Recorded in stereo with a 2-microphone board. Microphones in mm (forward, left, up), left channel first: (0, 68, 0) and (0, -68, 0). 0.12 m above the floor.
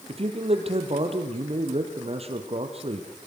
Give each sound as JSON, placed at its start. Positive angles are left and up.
{"t": 0.1, "sound": "a man speaking", "side_deg": -45, "distance_m": 3.5}